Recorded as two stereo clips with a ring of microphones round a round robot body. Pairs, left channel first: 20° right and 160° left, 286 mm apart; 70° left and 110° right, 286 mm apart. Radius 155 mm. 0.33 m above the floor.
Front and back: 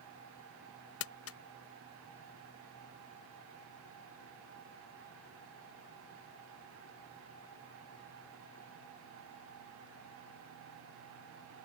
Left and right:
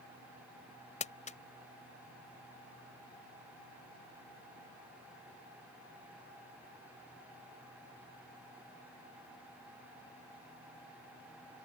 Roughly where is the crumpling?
Ahead.